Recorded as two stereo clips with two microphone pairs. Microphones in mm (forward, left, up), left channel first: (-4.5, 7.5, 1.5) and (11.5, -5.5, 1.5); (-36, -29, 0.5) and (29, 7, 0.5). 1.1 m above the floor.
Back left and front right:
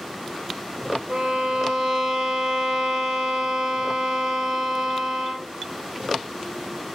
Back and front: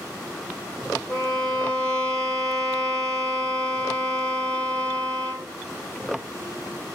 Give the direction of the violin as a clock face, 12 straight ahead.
2 o'clock.